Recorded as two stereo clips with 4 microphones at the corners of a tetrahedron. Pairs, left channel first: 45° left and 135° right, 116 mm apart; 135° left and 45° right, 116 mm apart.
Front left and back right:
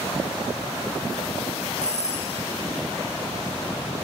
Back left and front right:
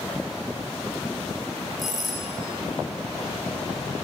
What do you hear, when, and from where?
1.8 s a doorbell: 45° left, 8.5 m